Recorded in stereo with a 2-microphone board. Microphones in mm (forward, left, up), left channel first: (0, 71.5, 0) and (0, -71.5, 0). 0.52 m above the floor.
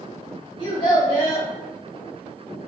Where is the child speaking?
35° left (ahead or behind), 1.4 m.